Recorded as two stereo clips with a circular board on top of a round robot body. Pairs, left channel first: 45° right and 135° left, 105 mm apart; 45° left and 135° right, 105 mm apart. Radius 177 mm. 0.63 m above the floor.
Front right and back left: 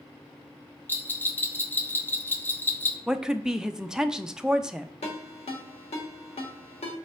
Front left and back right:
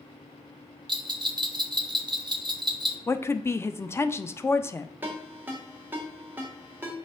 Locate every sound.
0.9 s a bell: 110° right, 0.8 m
3.1 s a woman speaking: 60° left, 0.5 m
5.0 s a ringtone: 60° right, 1.0 m